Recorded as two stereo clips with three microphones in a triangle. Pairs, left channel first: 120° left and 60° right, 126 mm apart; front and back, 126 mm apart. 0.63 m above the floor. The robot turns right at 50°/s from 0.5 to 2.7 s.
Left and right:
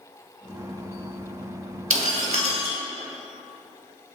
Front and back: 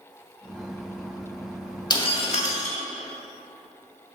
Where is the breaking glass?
55° right, 1.3 m; by 2.8 s 15° right, 1.3 m.